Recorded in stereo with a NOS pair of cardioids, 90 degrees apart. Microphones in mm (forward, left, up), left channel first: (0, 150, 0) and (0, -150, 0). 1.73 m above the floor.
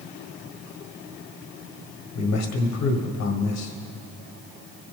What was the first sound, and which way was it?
A man speaking, 70° left.